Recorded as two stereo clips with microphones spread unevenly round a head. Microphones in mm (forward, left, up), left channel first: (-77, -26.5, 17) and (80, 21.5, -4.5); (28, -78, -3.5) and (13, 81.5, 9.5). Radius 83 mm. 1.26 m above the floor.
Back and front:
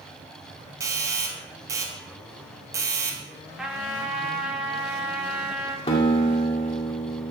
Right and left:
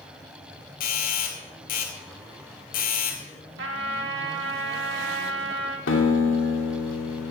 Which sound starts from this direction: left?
A trumpet, at 3.6 s.